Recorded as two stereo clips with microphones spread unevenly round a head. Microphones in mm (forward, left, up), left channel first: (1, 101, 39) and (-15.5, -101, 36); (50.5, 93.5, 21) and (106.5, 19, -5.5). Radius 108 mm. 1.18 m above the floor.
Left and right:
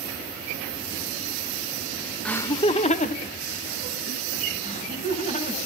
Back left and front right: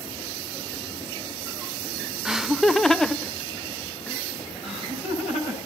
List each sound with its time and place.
2.2 s laughter: straight ahead, 0.7 m; by 4.2 s 45° left, 2.0 m
4.6 s laughter: 140° left, 9 m